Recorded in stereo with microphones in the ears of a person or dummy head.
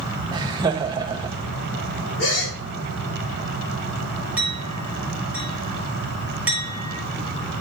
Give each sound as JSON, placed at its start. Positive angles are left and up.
{"t": 0.3, "sound": "laughter", "side_deg": -20, "distance_m": 1.1}
{"t": 2.2, "sound": "a gasp", "side_deg": 75, "distance_m": 3.0}
{"t": 4.4, "sound": "a clink", "side_deg": -5, "distance_m": 3.0}